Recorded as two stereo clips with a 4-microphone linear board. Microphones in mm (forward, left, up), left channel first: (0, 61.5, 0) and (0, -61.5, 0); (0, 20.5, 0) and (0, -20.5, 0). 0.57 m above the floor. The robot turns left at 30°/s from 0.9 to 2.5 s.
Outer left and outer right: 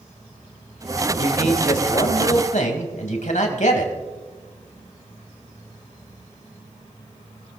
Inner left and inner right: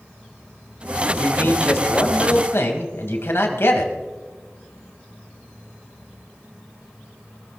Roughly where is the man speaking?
Behind left.